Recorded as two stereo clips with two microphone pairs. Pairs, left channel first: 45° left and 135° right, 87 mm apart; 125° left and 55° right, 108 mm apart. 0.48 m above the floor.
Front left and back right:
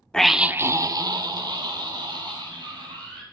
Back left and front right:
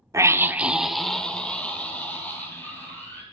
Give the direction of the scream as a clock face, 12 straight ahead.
1 o'clock.